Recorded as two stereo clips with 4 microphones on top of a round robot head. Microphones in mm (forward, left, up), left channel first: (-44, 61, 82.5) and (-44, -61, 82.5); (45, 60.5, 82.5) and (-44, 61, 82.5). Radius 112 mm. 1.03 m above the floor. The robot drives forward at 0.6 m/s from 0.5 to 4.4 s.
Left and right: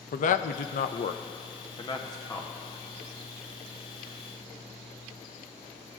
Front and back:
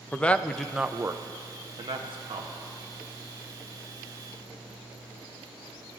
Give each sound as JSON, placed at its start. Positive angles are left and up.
{"t": 0.1, "sound": "a man speaking", "azimuth_deg": 75, "distance_m": 0.5}